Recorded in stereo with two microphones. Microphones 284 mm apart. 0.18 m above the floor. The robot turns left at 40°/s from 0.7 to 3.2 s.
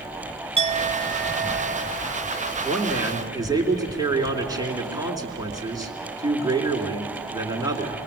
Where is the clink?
35° right, 0.9 m; by 2.5 s 105° right, 0.9 m.